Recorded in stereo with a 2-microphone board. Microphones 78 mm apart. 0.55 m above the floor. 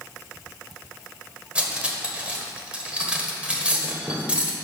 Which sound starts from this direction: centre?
Cutlery clinking, at 1.6 s.